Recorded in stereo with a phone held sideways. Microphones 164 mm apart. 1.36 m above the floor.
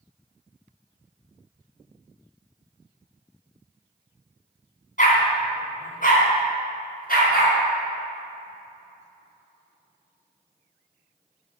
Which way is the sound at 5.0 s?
55° left (ahead or behind).